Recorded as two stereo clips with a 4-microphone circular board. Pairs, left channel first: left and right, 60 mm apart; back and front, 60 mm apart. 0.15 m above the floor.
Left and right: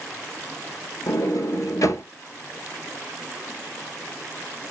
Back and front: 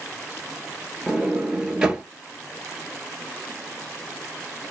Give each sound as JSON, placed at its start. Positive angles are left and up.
{"t": 1.1, "sound": "a sliding door", "azimuth_deg": 75, "distance_m": 0.6}